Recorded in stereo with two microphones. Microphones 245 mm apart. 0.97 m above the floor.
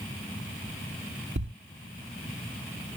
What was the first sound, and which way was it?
A thud, 50° right (ahead or behind).